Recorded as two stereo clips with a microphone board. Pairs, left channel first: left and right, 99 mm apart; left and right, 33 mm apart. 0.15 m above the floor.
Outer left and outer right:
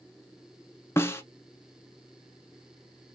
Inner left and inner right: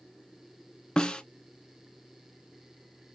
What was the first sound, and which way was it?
A snare drum, 25° left (ahead or behind).